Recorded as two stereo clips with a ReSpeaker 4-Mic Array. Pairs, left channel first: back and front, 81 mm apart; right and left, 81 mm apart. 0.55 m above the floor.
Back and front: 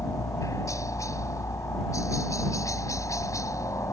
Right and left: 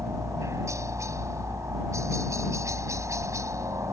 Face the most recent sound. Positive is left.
turn(degrees=135)